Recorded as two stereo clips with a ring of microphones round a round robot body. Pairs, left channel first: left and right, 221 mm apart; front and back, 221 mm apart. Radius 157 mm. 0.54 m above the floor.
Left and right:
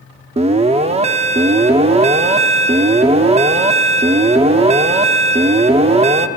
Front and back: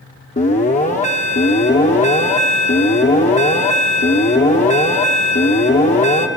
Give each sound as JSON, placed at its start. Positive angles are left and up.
{"t": 0.4, "sound": "an alarm", "azimuth_deg": -40, "distance_m": 0.8}